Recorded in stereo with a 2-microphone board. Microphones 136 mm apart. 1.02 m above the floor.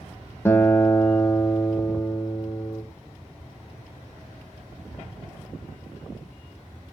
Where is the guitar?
20° left (ahead or behind), 0.6 m.